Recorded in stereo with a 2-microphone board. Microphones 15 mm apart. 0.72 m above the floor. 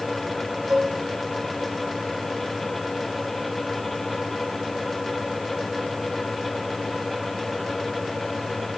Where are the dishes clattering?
85° right, 4.5 m.